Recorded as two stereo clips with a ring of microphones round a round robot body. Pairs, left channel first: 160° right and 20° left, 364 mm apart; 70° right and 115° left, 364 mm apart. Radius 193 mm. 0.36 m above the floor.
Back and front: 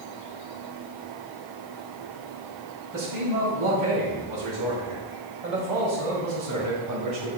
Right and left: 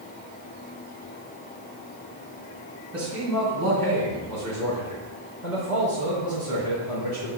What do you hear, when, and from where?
2.9 s a man speaking: 25° left, 3 m; by 7.3 s 25° right, 3.5 m